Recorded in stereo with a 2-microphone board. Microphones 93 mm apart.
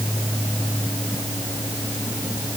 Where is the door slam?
I don't hear a door slam.